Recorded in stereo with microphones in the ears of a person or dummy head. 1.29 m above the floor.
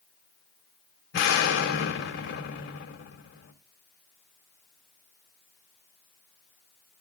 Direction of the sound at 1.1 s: 60° left (ahead or behind).